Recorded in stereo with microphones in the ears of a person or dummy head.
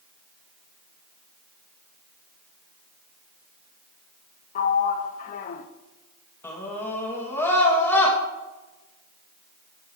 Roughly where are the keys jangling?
No keys jangling in this recording.